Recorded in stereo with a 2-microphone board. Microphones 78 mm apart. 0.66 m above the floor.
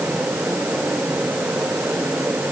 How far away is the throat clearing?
I don't hear throat clearing.